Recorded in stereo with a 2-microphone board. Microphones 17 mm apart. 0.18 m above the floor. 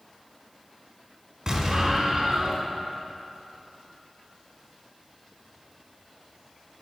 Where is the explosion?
40° right (ahead or behind), 1.1 m.